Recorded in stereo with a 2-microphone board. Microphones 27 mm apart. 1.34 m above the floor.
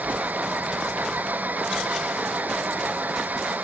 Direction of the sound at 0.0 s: 85° right.